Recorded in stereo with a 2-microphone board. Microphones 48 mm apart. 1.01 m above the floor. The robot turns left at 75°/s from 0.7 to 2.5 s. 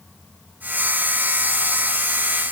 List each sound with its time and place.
Only background noise.